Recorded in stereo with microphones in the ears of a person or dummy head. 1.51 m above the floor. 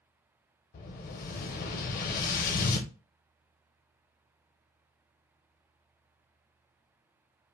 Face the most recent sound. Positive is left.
turn(degrees=50)  # may be behind; listen again after turning